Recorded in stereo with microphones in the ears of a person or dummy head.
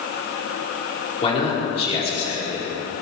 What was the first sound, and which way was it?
A man speaking, 35° left (ahead or behind).